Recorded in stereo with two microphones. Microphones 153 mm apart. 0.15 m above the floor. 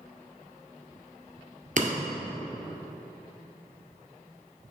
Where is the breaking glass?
60° right (ahead or behind), 1.5 m.